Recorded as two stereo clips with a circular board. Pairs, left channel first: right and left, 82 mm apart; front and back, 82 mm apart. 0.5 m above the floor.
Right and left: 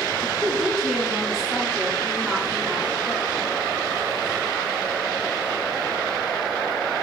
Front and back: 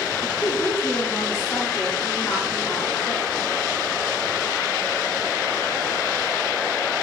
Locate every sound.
0.2 s a woman speaking: 10° left, 1.1 m